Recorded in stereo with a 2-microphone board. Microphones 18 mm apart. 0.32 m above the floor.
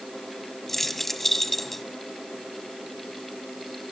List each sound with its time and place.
0.7 s keys jangling: 15° left (ahead or behind), 1.3 m